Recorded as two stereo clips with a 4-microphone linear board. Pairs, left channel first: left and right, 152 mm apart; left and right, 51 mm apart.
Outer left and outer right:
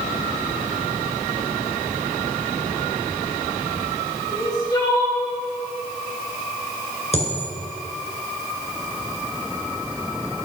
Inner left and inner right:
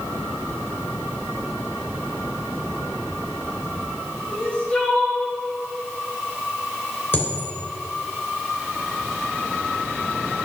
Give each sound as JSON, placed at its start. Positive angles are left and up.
{"t": 4.3, "sound": "crying", "side_deg": 25, "distance_m": 2.5}
{"t": 7.1, "sound": "a dropped coin", "side_deg": 45, "distance_m": 2.5}